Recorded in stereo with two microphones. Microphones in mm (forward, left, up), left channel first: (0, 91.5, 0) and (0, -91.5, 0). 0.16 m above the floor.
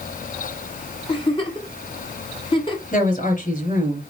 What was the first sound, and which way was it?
A giggle, 30° left (ahead or behind).